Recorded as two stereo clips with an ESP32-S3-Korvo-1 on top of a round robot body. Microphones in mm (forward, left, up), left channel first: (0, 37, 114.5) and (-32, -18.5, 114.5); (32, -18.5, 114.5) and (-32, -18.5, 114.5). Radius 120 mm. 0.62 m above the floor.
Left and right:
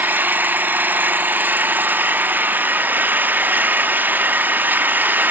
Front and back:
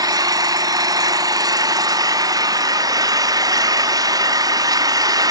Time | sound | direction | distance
0.0 | an engine running | straight behind | 0.9 m